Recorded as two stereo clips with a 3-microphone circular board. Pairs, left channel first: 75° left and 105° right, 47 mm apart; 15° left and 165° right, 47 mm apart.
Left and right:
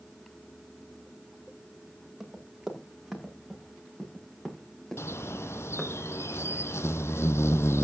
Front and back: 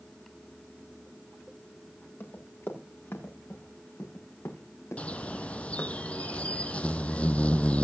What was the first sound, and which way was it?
Running footsteps, 25° right.